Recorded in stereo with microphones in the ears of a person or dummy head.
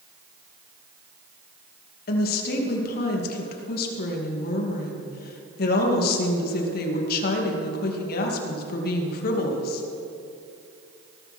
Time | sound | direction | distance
2.1 | a woman speaking | 55° left (ahead or behind) | 2.5 m